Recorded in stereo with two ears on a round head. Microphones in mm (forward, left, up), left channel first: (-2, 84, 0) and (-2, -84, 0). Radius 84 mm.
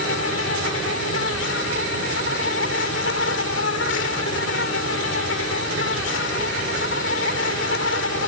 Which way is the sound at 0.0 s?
70° left (ahead or behind).